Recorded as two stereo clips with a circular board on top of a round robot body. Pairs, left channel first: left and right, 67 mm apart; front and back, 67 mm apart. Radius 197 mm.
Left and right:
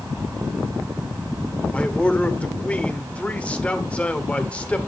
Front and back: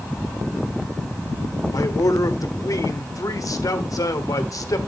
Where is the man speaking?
20° left, 1.7 m.